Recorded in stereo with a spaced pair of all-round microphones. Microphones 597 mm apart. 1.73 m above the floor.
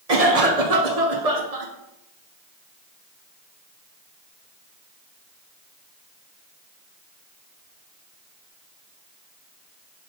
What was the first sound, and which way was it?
A cough, 70° right (ahead or behind).